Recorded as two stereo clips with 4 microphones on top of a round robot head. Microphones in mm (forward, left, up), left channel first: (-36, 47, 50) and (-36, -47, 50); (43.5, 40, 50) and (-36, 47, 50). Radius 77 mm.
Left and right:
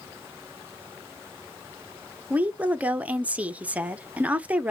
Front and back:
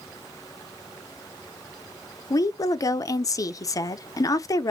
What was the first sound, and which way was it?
A woman speaking, 20° right.